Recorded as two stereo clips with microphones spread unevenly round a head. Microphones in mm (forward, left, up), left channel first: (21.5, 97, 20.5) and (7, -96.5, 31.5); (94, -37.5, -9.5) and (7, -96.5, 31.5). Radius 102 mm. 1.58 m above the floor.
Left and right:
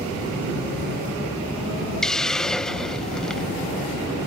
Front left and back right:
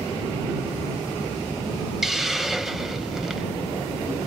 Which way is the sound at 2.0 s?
175° left.